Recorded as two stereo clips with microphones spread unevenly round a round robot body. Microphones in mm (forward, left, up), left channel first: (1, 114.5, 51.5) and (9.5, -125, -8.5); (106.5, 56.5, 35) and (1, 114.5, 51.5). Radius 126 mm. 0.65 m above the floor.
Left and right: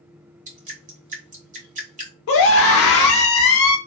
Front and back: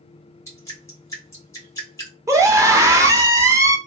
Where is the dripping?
80° right, 1.5 m.